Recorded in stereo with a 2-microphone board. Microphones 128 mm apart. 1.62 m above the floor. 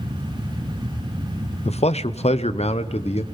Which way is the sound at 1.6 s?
65° left (ahead or behind).